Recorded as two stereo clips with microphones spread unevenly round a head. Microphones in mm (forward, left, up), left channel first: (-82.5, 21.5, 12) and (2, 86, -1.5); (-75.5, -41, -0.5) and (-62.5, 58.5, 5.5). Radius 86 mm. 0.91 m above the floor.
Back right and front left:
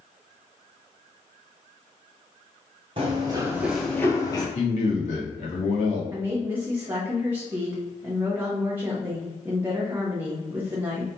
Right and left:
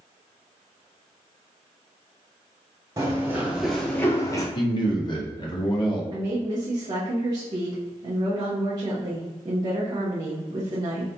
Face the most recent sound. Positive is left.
turn(degrees=80)